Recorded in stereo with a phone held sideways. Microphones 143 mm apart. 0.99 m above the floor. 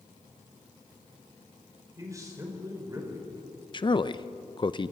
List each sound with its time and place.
2.0 s a man speaking: 25° right (ahead or behind), 4.5 m
3.7 s a man speaking: 35° left (ahead or behind), 0.6 m